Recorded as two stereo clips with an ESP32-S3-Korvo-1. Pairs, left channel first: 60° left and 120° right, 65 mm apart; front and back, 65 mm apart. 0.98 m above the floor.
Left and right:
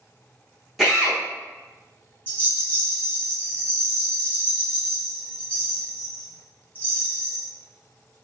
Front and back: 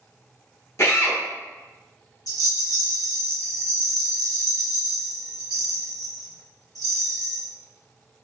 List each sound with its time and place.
0.8 s a drill: 35° right, 1.1 m
2.3 s a rattle: straight ahead, 1.1 m